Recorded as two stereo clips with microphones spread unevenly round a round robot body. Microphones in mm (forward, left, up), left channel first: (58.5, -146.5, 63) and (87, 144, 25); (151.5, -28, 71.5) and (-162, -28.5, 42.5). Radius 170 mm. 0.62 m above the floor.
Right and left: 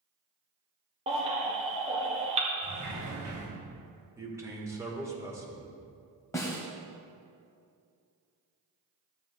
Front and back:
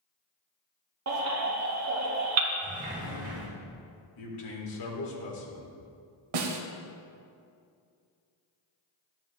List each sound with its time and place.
1.1 s a baby crying: 150° left, 1.3 m
2.6 s a sliding door: 115° left, 2.5 m
4.2 s a man speaking: 5° left, 2 m
6.3 s a snare drum: 175° right, 1.0 m